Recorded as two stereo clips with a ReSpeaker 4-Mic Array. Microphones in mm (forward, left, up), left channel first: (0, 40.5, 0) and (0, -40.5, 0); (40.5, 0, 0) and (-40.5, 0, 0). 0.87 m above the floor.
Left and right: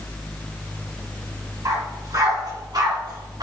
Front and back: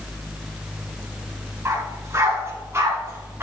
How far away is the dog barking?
About 3.5 m.